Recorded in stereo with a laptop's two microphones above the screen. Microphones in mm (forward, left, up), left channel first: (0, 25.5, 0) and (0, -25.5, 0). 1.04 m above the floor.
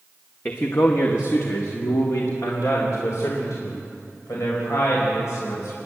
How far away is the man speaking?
About 1.1 m.